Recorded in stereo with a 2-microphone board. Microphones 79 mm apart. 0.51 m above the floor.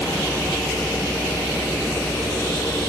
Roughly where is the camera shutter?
No camera shutter in this recording.